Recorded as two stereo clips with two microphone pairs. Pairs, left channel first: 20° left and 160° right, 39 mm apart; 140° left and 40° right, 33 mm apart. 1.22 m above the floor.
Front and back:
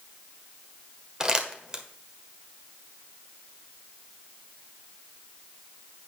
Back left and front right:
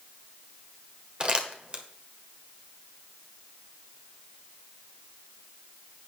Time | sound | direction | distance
1.2 | crumpling | 90° right | 1.3 m